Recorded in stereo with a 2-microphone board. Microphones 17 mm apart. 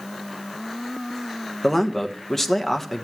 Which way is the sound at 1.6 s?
20° left (ahead or behind).